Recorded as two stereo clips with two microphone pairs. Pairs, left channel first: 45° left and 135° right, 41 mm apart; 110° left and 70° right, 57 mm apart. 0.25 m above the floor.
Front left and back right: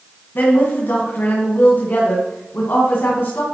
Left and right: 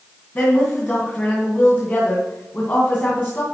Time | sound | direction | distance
0.3 | a woman speaking | 55° left | 2.5 m